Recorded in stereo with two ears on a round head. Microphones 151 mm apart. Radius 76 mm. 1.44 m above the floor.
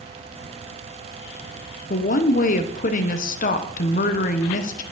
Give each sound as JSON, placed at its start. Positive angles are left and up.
{"t": 1.9, "sound": "a woman speaking", "side_deg": 50, "distance_m": 0.8}